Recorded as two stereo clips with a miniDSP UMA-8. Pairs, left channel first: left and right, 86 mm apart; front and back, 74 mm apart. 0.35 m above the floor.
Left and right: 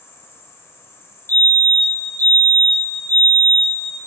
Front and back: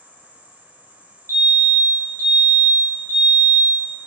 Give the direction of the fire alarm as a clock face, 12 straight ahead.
7 o'clock.